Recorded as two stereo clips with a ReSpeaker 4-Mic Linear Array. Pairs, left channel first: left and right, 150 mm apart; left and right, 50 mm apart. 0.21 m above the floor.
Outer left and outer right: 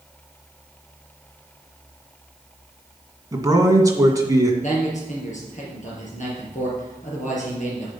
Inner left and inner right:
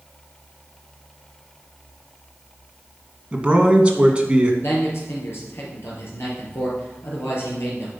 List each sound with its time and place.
3.3 s a man speaking: 20° right (ahead or behind), 1.9 m
4.6 s a man speaking: 55° left (ahead or behind), 4.5 m